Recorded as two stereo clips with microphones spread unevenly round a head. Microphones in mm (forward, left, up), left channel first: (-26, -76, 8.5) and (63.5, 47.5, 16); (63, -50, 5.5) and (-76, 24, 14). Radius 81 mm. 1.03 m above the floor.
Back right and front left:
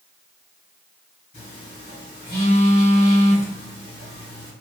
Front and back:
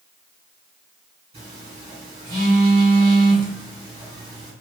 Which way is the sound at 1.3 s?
155° right.